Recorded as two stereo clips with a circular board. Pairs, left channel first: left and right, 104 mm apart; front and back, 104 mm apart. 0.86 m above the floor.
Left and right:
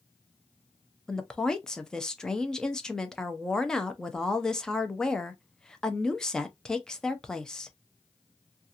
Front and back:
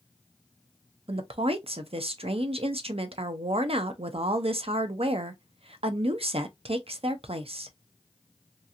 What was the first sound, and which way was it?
A woman speaking, 175° left.